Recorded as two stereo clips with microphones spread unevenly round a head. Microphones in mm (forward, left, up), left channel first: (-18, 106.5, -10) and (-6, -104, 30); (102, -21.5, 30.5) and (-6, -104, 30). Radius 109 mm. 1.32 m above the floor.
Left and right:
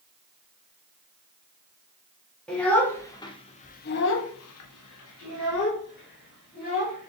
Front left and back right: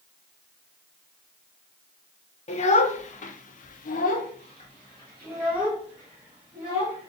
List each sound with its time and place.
2.5 s a child speaking: 5° left, 1.0 m; by 7.1 s 145° left, 1.6 m